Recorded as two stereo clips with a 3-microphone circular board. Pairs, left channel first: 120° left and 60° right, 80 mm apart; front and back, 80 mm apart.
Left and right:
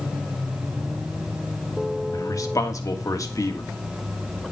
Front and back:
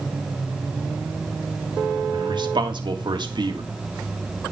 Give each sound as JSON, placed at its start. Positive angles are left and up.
{"t": 2.1, "sound": "a man speaking", "azimuth_deg": 165, "distance_m": 1.8}